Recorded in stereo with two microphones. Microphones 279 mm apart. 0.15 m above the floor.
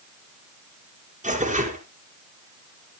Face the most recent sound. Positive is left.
turn(degrees=-25)  # may be behind; listen again after turning